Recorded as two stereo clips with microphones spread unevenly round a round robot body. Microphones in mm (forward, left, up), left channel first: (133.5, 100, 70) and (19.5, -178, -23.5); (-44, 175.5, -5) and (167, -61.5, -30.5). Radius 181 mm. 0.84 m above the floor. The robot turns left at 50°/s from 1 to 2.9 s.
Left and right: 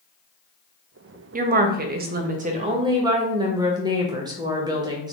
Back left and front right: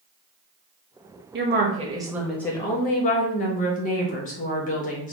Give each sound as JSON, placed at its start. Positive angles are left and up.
{"t": 1.3, "sound": "a woman speaking", "azimuth_deg": -85, "distance_m": 0.5}